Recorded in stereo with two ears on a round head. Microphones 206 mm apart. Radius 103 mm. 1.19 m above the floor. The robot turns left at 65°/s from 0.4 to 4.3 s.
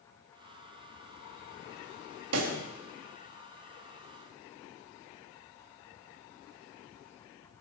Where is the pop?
70° right (ahead or behind), 2.5 m; by 2.6 s 80° right, 2.5 m.